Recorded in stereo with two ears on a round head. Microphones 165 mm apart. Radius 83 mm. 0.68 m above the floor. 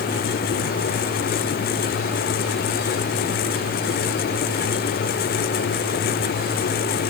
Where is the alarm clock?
I don't hear an alarm clock.